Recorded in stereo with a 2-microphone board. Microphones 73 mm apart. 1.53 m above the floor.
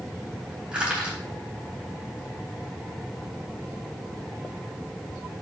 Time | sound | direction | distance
0.7 | crushing | 15° right (ahead or behind) | 3.5 m